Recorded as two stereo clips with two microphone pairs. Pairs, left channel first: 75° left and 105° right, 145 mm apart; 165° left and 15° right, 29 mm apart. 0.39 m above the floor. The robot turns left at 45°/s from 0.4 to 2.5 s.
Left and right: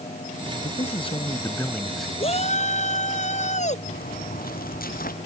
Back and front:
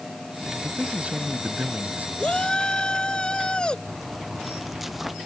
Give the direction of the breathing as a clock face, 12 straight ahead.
No breathing in this recording.